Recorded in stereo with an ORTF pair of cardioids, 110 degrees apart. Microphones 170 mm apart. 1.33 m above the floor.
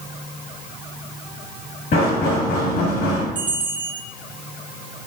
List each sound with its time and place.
1.9 s knocking: 65° left, 2 m
3.4 s a bell: 30° right, 0.8 m